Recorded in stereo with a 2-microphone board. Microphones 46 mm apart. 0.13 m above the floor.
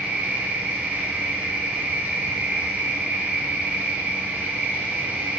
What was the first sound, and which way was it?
An insect, 35° right (ahead or behind).